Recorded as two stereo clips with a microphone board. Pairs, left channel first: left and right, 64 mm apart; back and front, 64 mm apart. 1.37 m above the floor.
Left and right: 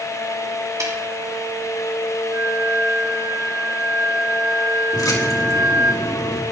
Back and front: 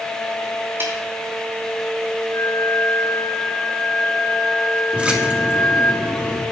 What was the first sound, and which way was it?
A snare drum, 55° right.